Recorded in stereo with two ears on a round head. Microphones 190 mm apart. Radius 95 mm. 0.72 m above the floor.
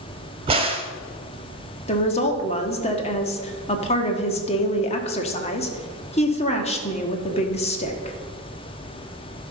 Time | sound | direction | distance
0.5 | a crack | 25° right (ahead or behind) | 1.2 m
1.9 | a woman speaking | 30° left (ahead or behind) | 1.3 m